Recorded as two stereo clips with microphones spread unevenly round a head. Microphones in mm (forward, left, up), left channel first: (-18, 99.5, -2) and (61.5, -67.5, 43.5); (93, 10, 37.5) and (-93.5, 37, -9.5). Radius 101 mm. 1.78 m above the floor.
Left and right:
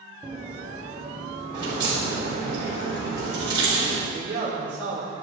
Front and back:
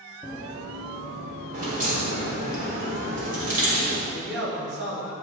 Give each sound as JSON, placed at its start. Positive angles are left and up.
{"t": 0.2, "sound": "running footsteps", "azimuth_deg": -80, "distance_m": 1.8}
{"t": 1.5, "sound": "a crack", "azimuth_deg": -130, "distance_m": 4.0}
{"t": 4.1, "sound": "a man speaking", "azimuth_deg": -150, "distance_m": 4.0}